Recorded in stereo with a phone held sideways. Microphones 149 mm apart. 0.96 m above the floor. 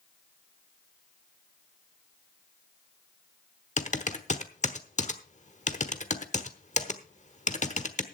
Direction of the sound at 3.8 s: 50° left (ahead or behind).